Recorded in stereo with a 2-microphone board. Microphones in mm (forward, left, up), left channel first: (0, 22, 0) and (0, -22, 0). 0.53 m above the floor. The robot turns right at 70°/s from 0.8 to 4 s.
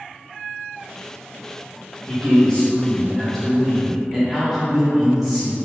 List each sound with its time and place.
2.1 s a man speaking: 20° left (ahead or behind), 1.1 m; by 5.5 s 5° right (ahead or behind), 1.1 m